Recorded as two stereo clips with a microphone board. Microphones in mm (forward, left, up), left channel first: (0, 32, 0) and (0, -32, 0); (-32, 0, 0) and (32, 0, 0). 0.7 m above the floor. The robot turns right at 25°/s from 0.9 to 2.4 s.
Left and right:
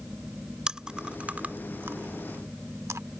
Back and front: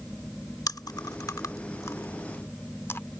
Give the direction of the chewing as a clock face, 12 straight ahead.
6 o'clock.